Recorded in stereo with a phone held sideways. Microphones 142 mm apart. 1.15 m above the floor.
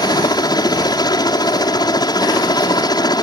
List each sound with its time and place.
0.0 s a helicopter: 30° left (ahead or behind)